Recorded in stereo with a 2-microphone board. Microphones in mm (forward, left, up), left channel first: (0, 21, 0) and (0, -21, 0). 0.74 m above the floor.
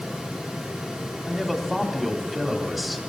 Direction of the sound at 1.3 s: Centre (ahead or behind).